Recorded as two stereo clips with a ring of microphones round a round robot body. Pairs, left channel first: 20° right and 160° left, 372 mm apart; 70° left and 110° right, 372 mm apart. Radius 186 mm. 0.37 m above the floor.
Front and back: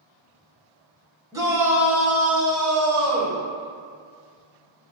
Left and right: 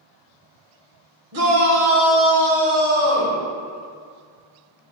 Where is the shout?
125° right, 1.6 m; by 3.4 s 110° right, 3 m.